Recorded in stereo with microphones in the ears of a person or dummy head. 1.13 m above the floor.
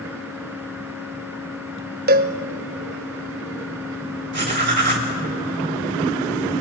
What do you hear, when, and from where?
2.1 s a cowbell: 50° right (ahead or behind), 1.0 m
4.3 s writing: 40° right (ahead or behind), 2.5 m